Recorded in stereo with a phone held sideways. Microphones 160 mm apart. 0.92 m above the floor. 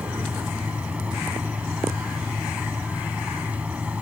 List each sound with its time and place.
0.0 s a fan: 10° right (ahead or behind)